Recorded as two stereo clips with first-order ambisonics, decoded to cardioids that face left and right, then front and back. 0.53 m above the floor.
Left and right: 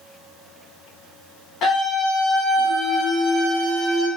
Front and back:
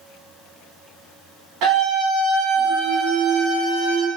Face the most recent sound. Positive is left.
turn(degrees=170)